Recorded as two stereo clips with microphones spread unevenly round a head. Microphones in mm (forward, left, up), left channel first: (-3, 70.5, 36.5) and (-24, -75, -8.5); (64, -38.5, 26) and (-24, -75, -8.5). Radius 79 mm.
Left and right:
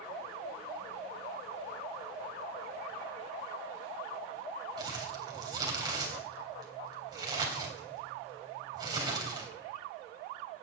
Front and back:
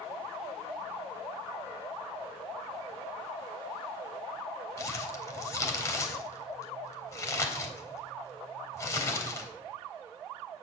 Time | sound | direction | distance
4.8 | crumpling | 30° right | 3.5 m